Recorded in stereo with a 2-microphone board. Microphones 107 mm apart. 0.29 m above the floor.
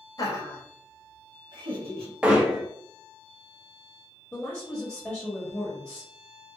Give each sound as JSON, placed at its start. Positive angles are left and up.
{"t": 0.2, "sound": "laughter", "side_deg": 35, "distance_m": 1.0}
{"t": 2.2, "sound": "hammering", "side_deg": -10, "distance_m": 0.7}
{"t": 4.3, "sound": "a woman speaking", "side_deg": 10, "distance_m": 1.0}